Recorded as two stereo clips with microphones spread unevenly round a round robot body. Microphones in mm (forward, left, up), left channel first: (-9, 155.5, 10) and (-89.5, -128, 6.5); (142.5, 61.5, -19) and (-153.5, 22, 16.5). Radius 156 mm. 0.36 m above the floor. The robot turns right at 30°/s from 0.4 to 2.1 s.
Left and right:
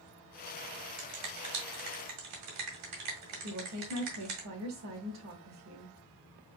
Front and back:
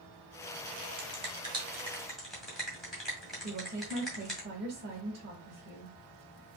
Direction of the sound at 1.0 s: 110° right.